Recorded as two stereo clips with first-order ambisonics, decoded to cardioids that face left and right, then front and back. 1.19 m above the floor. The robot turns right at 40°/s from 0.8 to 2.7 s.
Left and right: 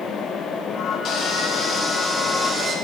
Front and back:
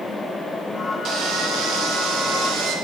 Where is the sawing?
140° left, 0.9 m; by 2.8 s 155° right, 0.9 m.